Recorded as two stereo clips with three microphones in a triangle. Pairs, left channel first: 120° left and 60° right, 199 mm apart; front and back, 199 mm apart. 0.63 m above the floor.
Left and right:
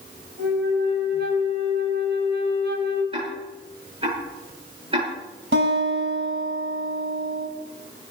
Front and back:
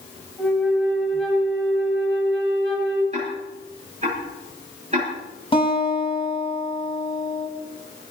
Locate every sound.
0.4 s a flute: 90° right, 4 m
3.1 s ticking: 125° right, 9.5 m
5.5 s a guitar: 65° right, 5.5 m